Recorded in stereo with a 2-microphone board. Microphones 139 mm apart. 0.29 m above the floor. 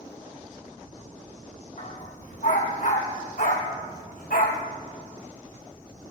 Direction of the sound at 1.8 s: 60° left (ahead or behind).